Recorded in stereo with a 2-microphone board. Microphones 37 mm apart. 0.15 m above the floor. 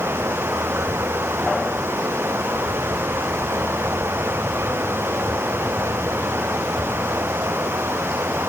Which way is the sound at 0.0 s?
80° right.